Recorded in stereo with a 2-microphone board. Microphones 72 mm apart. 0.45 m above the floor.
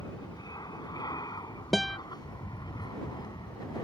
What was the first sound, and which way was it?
An aircraft, 65° left (ahead or behind).